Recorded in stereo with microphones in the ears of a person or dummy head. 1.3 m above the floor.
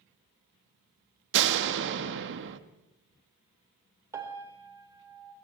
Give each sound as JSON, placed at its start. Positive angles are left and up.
{"t": 1.3, "sound": "a door slam", "side_deg": -65, "distance_m": 1.6}
{"t": 4.1, "sound": "a piano", "side_deg": -15, "distance_m": 4.0}